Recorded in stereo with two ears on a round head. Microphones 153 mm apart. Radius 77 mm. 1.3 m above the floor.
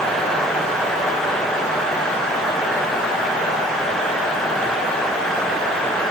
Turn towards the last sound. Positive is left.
No sound to turn to.